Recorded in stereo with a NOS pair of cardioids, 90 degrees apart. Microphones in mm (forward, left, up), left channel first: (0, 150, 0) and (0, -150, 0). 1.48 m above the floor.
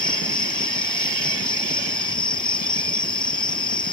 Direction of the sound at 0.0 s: 15° left.